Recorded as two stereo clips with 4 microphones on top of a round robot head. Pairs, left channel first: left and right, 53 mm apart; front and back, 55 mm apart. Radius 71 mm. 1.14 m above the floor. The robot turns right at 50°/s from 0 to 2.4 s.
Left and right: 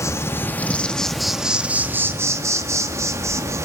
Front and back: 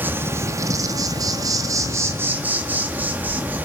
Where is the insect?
120° left, 1.9 m; by 3.6 s 120° right, 1.9 m.